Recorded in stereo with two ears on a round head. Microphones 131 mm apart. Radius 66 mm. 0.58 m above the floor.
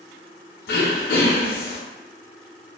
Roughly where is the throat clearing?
Left.